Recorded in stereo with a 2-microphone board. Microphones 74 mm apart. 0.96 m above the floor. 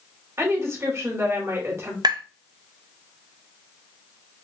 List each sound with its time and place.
0.4 s a woman speaking: 40° right (ahead or behind), 1.7 m
2.0 s tapping: 65° right (ahead or behind), 0.5 m